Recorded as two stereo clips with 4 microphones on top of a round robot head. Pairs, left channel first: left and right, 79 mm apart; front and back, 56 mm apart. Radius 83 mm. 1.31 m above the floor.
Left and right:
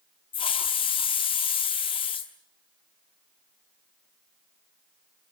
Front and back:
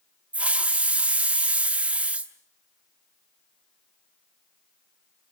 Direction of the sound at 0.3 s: 120° left.